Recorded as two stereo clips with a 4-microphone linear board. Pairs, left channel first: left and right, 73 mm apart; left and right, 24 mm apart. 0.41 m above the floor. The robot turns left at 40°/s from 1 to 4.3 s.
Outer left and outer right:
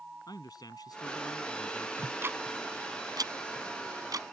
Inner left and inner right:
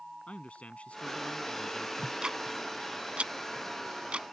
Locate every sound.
0.3 s a man speaking: 95° left; by 1.9 s 60° left
2.0 s ticking: 25° right (ahead or behind); by 4.2 s 60° right (ahead or behind)